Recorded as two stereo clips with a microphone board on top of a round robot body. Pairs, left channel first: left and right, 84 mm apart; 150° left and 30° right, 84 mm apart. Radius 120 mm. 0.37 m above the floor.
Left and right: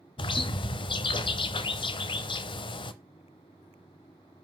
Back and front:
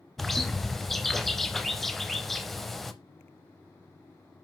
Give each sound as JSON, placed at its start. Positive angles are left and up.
{"t": 0.2, "sound": "a bird", "azimuth_deg": 60, "distance_m": 0.5}